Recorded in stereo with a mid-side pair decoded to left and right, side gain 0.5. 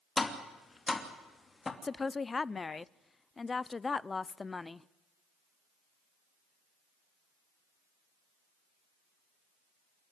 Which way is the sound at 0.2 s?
25° left.